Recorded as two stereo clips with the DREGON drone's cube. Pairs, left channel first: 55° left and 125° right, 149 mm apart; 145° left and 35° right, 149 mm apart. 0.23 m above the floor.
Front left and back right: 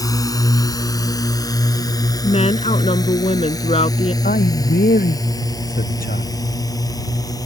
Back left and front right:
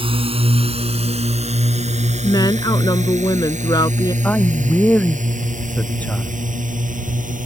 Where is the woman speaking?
90° left.